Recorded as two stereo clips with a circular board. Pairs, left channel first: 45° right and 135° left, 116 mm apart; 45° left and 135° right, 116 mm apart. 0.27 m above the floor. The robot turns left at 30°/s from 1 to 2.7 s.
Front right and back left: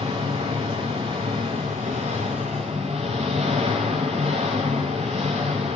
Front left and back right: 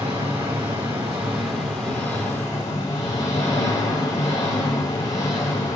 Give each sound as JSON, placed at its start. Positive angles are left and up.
{"t": 0.0, "sound": "an engine running", "azimuth_deg": 155, "distance_m": 6.5}